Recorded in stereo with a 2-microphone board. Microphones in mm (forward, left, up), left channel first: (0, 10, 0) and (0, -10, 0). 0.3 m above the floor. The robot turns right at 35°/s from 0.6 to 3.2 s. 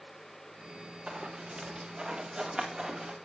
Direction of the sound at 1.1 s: 70° right (ahead or behind).